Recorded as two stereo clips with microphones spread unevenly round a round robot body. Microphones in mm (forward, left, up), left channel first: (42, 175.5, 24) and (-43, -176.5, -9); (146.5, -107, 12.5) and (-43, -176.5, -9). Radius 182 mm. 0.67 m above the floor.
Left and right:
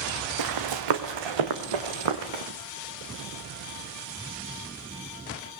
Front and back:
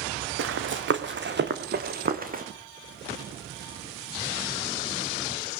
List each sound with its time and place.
0.4 s running footsteps: 140° right, 2.5 m; by 2.4 s 110° right, 3.5 m